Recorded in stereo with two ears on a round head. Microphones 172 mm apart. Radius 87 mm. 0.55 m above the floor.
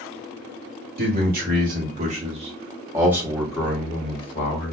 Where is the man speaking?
50° right (ahead or behind), 1.7 m; by 4.7 s 40° left (ahead or behind), 1.0 m.